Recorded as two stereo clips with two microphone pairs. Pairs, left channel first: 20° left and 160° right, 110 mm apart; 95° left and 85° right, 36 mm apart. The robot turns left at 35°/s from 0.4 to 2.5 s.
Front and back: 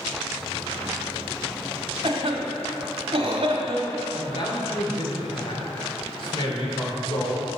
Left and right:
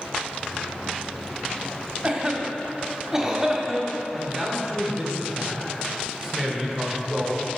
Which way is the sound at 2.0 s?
145° right.